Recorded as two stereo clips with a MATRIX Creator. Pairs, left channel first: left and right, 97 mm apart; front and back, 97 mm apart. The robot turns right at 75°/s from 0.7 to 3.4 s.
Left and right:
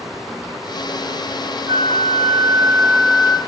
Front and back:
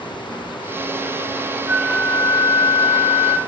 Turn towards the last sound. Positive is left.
turn(degrees=15)